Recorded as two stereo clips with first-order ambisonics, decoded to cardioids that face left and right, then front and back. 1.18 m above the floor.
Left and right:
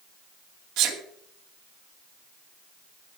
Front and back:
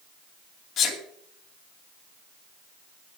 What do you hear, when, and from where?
0.8 s a sneeze: 55° right, 2.5 m